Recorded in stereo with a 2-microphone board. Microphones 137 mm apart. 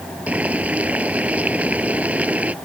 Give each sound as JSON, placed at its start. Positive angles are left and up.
{"t": 0.3, "sound": "boiling", "side_deg": -10}